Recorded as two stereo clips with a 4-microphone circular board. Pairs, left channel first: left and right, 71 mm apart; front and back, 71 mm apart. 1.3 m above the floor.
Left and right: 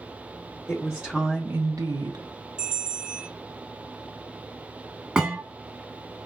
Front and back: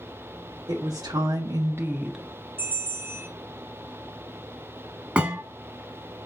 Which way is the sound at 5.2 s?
150° right.